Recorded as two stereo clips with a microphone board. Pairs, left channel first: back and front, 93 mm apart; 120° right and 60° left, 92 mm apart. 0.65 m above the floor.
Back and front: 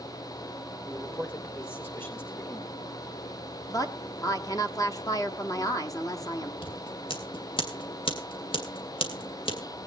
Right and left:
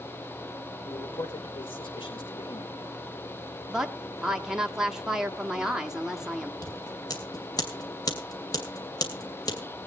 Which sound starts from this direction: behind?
Scissors, at 6.6 s.